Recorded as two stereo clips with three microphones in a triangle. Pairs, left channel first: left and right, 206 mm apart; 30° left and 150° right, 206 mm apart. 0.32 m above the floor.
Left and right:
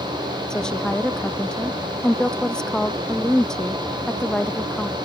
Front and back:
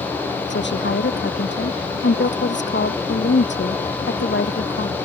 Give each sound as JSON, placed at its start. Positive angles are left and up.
{"t": 0.5, "sound": "a woman speaking", "azimuth_deg": 5}